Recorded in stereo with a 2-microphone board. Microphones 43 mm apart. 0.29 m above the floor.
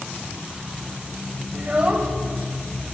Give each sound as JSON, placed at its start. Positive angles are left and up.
{"t": 1.5, "sound": "a child speaking", "side_deg": -35, "distance_m": 0.7}